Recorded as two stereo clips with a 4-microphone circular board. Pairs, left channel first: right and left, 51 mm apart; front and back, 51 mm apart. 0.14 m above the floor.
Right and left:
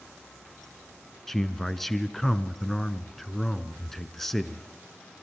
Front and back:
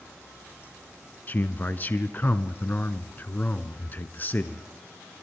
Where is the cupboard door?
I don't hear a cupboard door.